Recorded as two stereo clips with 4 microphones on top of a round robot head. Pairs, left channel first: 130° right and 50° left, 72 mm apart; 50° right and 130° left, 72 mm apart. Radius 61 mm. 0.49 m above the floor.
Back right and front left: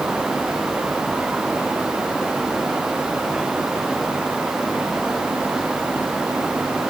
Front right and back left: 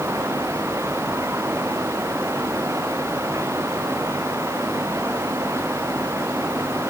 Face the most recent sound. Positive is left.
No sound to turn to.